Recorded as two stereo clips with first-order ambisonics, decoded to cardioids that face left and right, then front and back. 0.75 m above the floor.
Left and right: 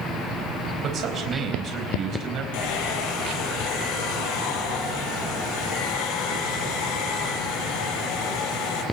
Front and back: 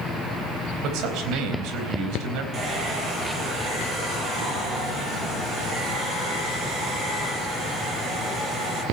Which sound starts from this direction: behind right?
A man speaking, at 0.8 s.